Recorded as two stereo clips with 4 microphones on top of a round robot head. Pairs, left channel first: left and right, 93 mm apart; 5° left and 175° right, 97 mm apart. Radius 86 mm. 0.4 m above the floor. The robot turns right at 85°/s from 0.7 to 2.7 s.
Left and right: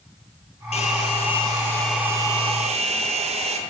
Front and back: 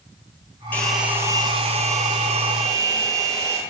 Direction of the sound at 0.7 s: 80° left.